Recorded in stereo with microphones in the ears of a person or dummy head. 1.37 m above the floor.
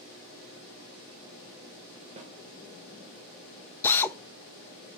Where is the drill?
10° left (ahead or behind), 0.6 m.